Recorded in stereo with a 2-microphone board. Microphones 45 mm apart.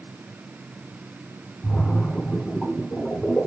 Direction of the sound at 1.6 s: 25° left (ahead or behind).